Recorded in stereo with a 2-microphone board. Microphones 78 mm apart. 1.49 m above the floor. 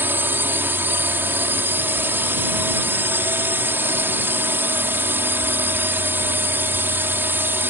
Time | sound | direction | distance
0.0 | a drone | 25° right (ahead or behind) | ?